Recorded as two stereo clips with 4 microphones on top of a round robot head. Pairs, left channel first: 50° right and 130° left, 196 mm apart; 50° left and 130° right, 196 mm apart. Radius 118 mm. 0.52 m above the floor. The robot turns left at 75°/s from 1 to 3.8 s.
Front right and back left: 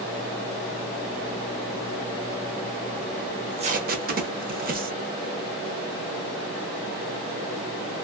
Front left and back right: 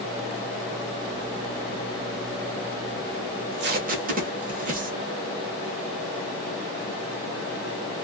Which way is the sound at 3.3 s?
145° right.